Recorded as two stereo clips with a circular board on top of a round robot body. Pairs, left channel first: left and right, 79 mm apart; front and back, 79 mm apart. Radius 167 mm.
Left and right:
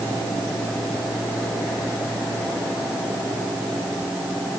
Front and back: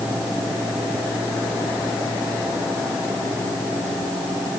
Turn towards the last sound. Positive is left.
No sound to turn to.